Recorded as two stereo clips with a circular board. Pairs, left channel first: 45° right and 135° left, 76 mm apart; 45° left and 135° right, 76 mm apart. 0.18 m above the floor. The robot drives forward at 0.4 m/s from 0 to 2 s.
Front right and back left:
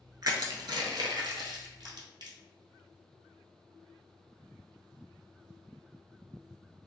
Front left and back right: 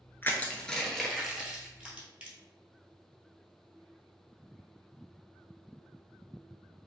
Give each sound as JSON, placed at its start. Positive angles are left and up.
{"t": 0.2, "sound": "crushing", "azimuth_deg": 105, "distance_m": 0.5}